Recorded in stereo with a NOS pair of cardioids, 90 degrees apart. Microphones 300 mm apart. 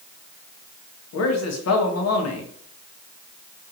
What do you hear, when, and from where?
1.1 s a man speaking: 55° left, 1.4 m